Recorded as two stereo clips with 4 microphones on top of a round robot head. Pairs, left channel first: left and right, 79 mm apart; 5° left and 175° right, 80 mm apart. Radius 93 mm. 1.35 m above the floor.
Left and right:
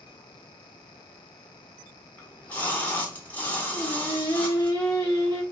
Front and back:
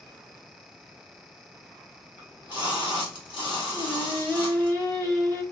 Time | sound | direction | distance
2.2 | a splash | 20° left | 1.4 m
3.7 | singing | 55° left | 1.5 m